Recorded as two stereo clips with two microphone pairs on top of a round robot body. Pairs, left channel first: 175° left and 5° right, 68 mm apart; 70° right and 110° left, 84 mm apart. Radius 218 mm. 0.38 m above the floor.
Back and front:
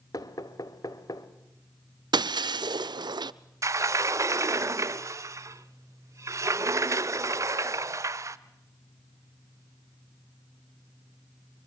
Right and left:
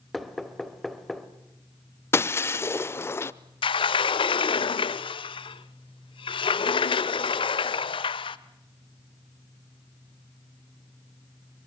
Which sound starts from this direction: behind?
Knocking, at 0.1 s.